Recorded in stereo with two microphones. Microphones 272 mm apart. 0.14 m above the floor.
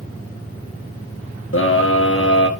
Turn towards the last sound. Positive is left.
turn(degrees=50)  # may be behind; listen again after turning